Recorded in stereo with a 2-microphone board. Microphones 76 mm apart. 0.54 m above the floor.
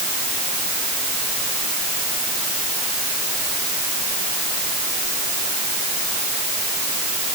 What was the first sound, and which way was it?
Only background noise.